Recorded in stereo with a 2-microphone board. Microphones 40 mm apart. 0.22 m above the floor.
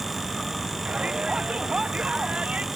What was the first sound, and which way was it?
A shout, 25° right (ahead or behind).